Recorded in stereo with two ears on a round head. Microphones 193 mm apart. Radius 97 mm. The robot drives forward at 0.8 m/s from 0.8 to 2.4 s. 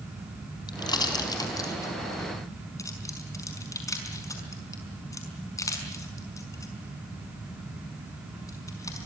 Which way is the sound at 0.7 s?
20° left (ahead or behind).